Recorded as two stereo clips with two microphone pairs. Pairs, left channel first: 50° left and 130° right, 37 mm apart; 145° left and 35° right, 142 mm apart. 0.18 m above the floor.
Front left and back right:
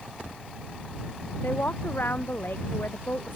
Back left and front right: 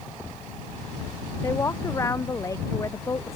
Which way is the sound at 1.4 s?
75° left.